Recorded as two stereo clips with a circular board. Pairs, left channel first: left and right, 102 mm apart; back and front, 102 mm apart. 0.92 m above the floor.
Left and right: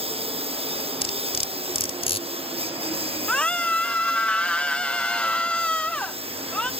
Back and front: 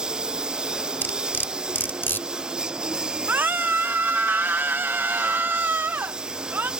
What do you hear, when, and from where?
0.0 s a lawn mower: 80° right
1.0 s cutlery clinking: 110° left
3.3 s a scream: 30° left